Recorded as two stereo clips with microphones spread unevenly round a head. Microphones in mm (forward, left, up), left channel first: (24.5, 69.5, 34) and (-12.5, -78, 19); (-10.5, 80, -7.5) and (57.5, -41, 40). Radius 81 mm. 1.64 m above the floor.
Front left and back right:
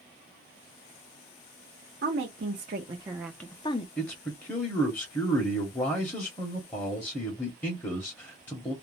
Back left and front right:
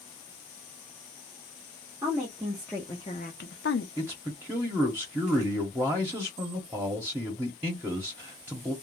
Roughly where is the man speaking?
Ahead.